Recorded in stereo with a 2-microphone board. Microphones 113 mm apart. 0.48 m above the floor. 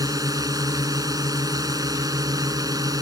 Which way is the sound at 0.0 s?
35° right (ahead or behind).